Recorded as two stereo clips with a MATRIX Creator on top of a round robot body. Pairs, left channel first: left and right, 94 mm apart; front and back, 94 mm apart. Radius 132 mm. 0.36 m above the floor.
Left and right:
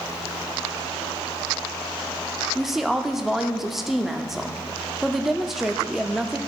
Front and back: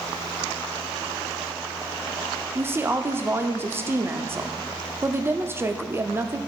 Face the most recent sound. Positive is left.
turn(degrees=-170)